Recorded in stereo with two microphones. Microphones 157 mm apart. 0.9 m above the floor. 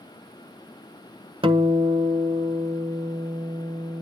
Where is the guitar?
35° right (ahead or behind), 1.2 m.